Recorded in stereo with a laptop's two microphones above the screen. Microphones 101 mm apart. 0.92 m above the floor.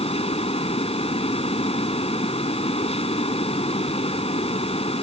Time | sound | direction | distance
0.0 | a fan | 85° left | ?